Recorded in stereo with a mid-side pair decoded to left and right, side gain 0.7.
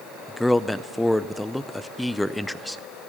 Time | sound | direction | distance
0.3 | a man speaking | 5° left | 0.6 m